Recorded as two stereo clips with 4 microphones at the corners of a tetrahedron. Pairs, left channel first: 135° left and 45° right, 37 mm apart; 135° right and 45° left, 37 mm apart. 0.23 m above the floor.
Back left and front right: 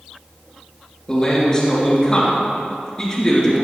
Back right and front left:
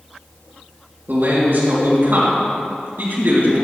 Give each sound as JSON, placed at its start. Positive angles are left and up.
{"t": 1.1, "sound": "a man speaking", "azimuth_deg": 65, "distance_m": 3.5}